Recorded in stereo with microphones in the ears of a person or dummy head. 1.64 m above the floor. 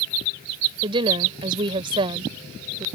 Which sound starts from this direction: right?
A woman speaking, at 0.8 s.